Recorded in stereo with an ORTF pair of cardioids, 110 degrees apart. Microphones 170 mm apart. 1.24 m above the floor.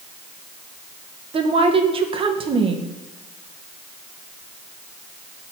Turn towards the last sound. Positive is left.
turn(degrees=-35)